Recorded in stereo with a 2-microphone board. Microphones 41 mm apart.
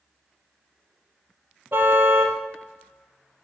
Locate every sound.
1.7 s a car horn: 60° right (ahead or behind), 2 m